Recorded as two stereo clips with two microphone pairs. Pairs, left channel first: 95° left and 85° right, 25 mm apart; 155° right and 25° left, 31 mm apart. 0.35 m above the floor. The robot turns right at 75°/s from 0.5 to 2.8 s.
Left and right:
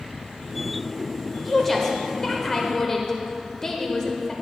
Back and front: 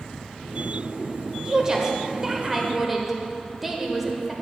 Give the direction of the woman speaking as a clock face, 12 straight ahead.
12 o'clock.